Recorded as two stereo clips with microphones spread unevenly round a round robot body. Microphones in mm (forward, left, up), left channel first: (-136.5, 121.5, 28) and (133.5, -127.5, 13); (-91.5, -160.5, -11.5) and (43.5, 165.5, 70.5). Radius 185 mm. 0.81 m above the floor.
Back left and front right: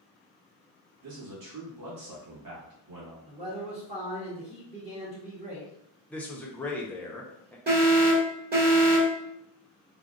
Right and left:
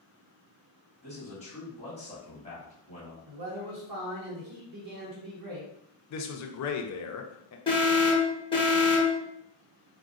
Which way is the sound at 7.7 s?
80° right.